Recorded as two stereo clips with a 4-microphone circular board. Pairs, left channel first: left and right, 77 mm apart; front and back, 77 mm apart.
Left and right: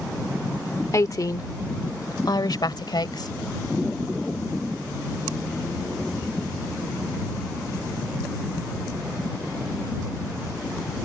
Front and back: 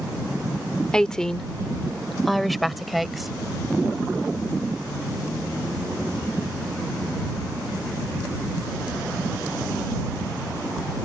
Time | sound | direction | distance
0.9 | a woman speaking | 75° left | ?